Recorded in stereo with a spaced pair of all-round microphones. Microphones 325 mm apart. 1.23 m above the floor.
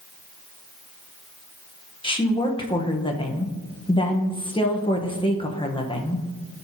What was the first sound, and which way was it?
A woman speaking, 15° left (ahead or behind).